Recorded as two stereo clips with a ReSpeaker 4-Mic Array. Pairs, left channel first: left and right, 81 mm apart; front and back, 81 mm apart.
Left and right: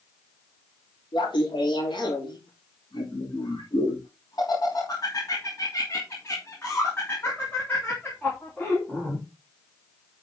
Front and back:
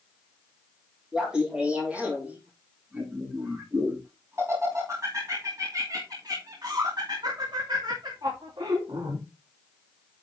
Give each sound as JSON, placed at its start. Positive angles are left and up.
{"t": 1.1, "sound": "laughter", "azimuth_deg": 95, "distance_m": 3.5}